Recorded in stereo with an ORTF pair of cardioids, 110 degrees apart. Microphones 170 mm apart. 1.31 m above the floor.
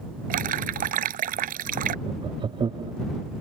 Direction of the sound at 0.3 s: 60° right.